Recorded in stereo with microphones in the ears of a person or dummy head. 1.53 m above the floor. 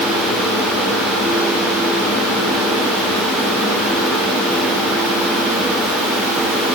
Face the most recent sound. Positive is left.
No sound to turn to.